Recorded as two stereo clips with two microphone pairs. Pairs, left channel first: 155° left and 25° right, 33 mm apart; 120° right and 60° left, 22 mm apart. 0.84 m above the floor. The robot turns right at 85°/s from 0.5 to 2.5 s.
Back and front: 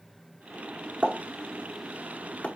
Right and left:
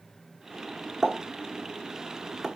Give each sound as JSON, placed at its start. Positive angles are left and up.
{"t": 1.0, "sound": "a pop", "azimuth_deg": 5, "distance_m": 0.8}